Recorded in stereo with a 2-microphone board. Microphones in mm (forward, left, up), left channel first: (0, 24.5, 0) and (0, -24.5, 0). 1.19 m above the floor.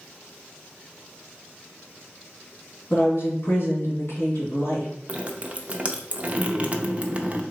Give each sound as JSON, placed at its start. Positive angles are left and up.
{"t": 2.9, "sound": "a woman speaking", "side_deg": 55, "distance_m": 1.9}
{"t": 5.1, "sound": "dripping", "side_deg": -30, "distance_m": 0.5}